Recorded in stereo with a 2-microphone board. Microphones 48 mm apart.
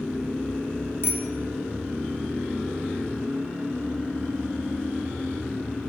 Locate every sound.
1.0 s a bicycle bell: 55° left (ahead or behind), 3.5 m